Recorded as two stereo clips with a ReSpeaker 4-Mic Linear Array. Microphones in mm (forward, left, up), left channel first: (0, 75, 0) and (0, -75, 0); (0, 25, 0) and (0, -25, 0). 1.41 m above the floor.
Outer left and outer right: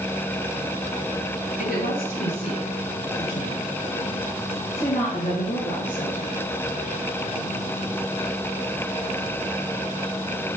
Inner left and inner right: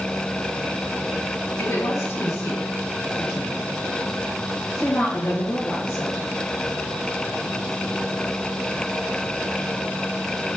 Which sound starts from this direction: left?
A woman speaking, at 1.6 s.